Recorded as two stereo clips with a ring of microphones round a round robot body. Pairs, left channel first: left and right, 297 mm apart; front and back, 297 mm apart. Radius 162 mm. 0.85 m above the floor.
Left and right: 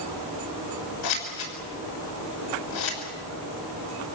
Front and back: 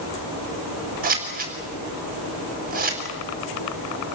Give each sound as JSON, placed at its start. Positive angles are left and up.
{"t": 1.0, "sound": "scissors", "azimuth_deg": 120, "distance_m": 6.0}